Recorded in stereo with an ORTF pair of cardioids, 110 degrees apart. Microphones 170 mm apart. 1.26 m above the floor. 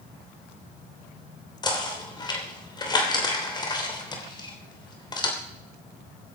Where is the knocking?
25° left, 3 m.